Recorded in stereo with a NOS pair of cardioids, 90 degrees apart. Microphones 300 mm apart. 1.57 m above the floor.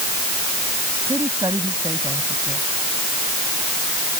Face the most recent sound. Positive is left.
turn(degrees=-10)